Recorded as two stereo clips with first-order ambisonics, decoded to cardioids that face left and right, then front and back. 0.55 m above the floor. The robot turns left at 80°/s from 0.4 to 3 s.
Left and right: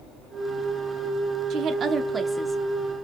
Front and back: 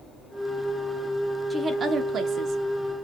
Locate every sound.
1.5 s a woman speaking: 105° right, 0.8 m; by 3.0 s 140° left, 0.8 m